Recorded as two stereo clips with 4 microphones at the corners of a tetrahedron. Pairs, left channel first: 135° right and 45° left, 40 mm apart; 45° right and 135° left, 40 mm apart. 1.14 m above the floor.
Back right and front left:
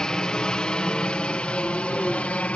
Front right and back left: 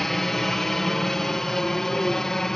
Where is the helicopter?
110° right.